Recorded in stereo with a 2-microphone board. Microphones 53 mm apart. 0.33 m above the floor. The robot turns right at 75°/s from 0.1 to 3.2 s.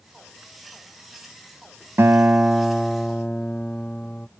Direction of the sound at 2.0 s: 65° right.